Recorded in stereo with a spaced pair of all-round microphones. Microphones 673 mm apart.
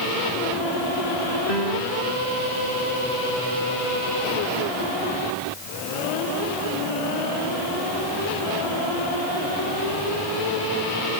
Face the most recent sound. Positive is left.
turn(degrees=-80)